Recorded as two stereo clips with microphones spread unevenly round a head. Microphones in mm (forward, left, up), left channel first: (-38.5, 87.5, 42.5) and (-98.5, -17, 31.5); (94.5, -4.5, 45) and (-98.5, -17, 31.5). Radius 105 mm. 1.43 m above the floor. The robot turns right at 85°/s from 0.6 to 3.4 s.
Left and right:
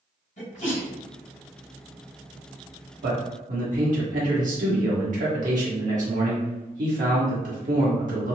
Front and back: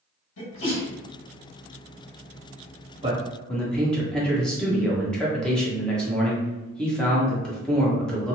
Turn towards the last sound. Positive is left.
turn(degrees=-85)